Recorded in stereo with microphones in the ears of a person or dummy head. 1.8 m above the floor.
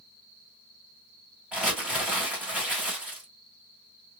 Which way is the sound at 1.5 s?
5° right (ahead or behind).